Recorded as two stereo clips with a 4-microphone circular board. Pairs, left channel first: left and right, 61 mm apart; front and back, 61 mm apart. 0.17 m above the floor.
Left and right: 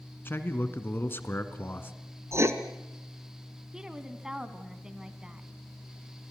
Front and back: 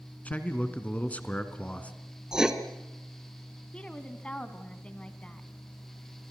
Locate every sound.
0.2 s a man speaking: 55° left, 1.8 m
2.3 s writing: 100° right, 1.4 m
3.7 s a woman speaking: 30° right, 1.4 m